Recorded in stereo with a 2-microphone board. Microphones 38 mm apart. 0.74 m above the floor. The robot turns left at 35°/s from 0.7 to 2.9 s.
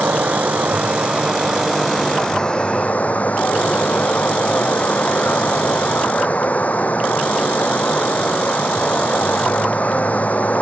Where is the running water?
140° right; by 10.6 s 140° left.